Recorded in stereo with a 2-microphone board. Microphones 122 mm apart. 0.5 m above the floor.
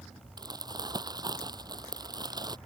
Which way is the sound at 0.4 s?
35° right (ahead or behind).